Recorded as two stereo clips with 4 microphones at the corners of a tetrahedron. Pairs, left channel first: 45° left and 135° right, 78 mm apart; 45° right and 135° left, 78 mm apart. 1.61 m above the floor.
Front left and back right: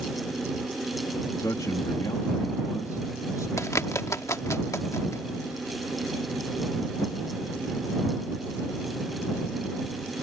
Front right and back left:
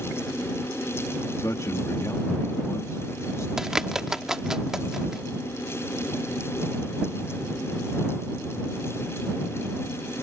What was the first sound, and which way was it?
A man speaking, straight ahead.